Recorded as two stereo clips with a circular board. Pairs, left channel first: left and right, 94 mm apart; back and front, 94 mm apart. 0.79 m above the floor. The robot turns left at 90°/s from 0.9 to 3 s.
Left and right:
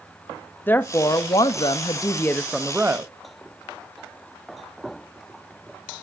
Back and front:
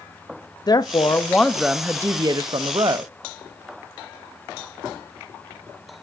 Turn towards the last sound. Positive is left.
turn(degrees=-35)